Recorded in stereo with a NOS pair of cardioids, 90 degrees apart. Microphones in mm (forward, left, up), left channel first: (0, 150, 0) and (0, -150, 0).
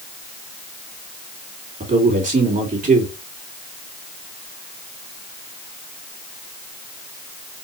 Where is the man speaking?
30° right, 2.5 m.